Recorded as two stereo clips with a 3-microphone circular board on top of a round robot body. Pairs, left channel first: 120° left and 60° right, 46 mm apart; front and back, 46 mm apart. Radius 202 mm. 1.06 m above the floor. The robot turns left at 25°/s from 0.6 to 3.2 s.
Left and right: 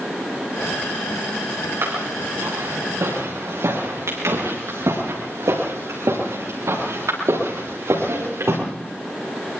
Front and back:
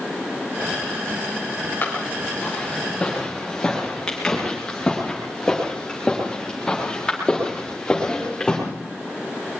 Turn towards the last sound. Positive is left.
turn(degrees=-75)